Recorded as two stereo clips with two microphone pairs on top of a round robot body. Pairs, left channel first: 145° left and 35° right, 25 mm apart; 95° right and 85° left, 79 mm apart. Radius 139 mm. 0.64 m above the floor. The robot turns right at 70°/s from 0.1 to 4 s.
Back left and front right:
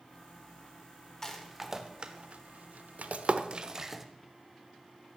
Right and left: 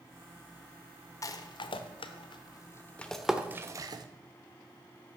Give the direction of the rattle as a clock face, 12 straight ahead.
5 o'clock.